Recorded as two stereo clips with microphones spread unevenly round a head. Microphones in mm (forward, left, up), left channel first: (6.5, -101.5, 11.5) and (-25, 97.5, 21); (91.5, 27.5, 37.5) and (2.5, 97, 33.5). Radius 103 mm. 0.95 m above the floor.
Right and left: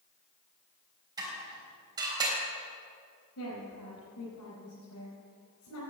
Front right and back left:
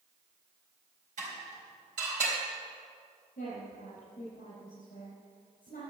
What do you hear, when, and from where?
1.2 s dishes clattering: 170° left, 4 m
3.4 s a woman speaking: 70° right, 5 m